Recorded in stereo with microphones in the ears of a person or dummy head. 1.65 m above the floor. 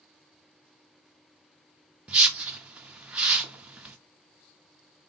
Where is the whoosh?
5° right (ahead or behind), 0.6 m.